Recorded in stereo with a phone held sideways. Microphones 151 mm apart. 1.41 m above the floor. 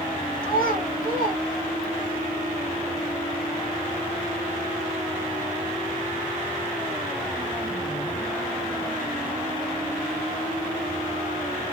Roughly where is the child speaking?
Left.